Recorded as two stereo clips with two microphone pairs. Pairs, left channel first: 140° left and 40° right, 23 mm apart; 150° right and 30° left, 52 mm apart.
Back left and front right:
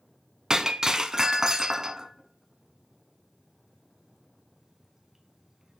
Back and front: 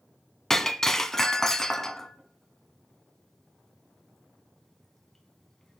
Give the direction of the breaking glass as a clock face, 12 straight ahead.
3 o'clock.